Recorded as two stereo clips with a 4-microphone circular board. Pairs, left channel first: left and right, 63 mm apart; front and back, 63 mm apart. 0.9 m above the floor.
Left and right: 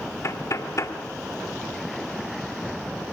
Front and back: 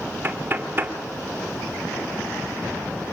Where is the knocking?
120° left, 2 m.